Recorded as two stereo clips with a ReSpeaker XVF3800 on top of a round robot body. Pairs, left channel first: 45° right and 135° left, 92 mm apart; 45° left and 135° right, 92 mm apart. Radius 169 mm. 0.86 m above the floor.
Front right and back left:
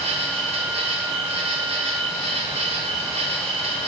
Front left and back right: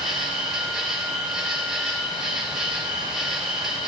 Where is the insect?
140° left, 2.0 m.